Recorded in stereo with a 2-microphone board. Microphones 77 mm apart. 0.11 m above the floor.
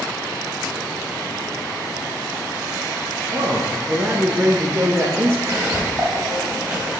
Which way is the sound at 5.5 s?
30° right (ahead or behind).